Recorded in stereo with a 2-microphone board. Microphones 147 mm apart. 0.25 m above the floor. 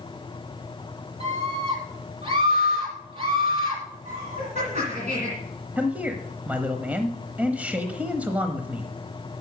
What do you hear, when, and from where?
1.2 s a scream: 40° right (ahead or behind), 6 m
4.0 s laughter: 55° right (ahead or behind), 2.5 m
5.8 s a man speaking: 10° right (ahead or behind), 0.9 m